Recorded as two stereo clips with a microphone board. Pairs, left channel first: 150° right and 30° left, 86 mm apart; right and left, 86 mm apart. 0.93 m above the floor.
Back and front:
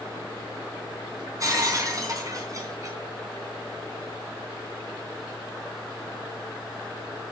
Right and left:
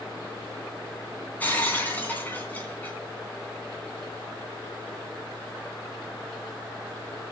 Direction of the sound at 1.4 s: 20° right.